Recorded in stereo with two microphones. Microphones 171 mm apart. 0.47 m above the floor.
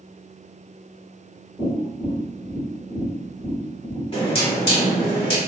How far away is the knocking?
About 1.2 m.